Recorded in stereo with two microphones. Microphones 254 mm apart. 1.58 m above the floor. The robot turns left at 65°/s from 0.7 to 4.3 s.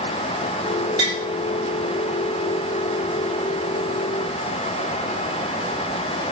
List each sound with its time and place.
1.0 s tapping: 25° left (ahead or behind), 0.7 m; by 1.2 s 10° left (ahead or behind), 0.7 m